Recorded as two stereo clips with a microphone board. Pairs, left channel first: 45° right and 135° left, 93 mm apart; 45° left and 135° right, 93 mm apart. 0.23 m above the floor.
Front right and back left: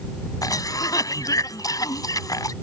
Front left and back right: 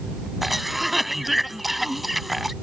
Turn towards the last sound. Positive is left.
turn(degrees=-45)